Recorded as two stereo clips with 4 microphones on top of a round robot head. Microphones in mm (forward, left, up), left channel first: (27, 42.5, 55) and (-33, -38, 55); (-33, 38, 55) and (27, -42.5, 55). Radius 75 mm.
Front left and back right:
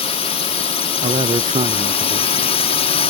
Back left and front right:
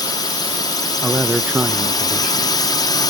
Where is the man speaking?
130° right.